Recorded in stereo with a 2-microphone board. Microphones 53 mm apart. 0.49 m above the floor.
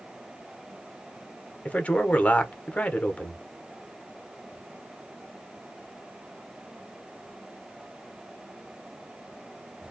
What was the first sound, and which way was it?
A man speaking, 25° left (ahead or behind).